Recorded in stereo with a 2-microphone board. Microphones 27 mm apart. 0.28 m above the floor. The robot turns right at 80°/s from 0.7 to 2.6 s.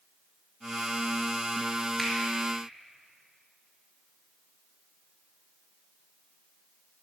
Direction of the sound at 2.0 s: 5° left (ahead or behind).